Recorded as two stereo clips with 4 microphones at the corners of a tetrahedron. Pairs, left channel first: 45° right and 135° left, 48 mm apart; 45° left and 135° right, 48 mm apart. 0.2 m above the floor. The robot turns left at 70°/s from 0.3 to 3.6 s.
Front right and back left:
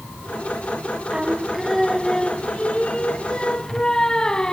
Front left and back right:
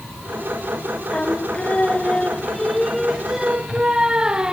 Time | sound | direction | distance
1.1 | singing | 85° left | 0.7 m